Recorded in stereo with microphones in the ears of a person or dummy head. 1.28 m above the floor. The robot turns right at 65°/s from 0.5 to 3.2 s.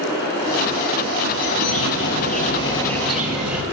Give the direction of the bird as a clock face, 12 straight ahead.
9 o'clock.